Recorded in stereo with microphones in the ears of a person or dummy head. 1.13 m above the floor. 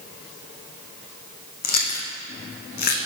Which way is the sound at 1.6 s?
45° left (ahead or behind).